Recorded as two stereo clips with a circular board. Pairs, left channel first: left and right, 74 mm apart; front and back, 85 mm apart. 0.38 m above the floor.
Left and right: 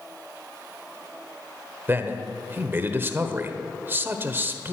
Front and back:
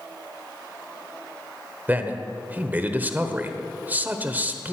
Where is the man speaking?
125° right, 1.2 m.